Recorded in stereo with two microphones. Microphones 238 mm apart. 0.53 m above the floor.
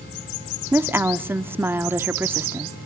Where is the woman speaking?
10° right (ahead or behind), 0.6 m.